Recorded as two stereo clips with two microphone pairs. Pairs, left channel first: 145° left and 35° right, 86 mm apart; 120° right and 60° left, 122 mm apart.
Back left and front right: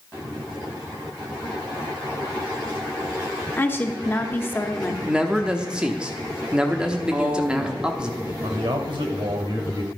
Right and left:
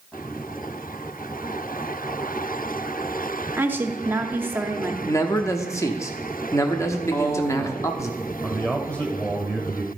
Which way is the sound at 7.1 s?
80° right.